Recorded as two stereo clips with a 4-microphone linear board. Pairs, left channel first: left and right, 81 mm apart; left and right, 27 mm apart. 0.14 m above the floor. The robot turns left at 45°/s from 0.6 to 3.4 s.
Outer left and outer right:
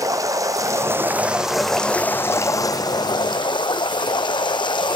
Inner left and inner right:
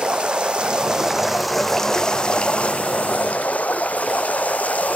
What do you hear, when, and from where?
0.0 s running water: 135° right, 0.7 m; by 5.0 s 100° left, 0.7 m